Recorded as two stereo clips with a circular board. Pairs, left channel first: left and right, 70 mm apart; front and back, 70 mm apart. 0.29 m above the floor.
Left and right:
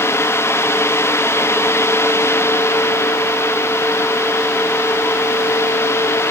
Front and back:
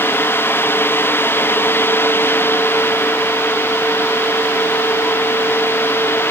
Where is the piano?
No piano in this recording.